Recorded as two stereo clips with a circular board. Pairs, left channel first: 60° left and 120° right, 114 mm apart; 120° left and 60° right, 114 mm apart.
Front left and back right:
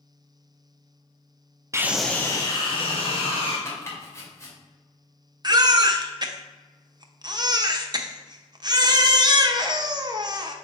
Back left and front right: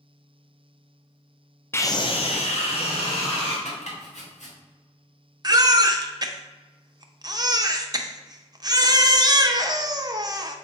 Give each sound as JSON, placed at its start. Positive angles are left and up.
{"t": 1.7, "sound": "a scream", "azimuth_deg": -175, "distance_m": 0.6}
{"t": 3.6, "sound": "chopping", "azimuth_deg": 125, "distance_m": 2.0}
{"t": 5.4, "sound": "a baby crying", "azimuth_deg": -90, "distance_m": 0.7}